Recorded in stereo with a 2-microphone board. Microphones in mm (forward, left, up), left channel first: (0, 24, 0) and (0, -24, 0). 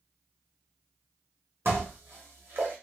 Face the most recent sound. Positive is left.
turn(degrees=-55)  # may be behind; listen again after turning